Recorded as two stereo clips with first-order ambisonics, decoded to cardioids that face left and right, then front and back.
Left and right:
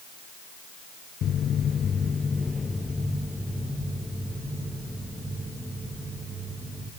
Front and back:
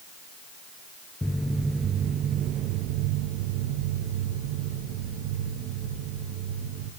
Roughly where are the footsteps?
Left.